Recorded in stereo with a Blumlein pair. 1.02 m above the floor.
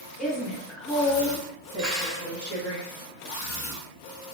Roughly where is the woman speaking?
Ahead.